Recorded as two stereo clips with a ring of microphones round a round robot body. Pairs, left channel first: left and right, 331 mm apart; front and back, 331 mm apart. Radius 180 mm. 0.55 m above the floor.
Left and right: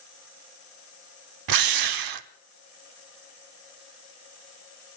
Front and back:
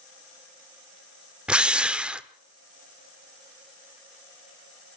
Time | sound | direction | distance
1.5 | a drill | 95° right | 1.1 m